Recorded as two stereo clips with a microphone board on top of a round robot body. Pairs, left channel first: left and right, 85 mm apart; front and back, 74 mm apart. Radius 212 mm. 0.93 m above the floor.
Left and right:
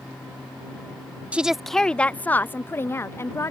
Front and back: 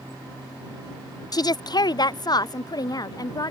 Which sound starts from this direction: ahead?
A woman speaking, at 1.3 s.